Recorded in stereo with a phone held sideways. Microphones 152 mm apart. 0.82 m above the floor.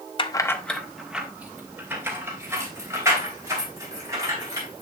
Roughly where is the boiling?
I don't hear boiling.